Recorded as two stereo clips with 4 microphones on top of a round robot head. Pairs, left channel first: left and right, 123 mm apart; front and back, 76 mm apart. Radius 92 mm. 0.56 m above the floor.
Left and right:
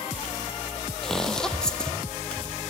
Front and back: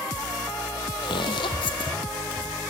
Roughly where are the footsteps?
Ahead.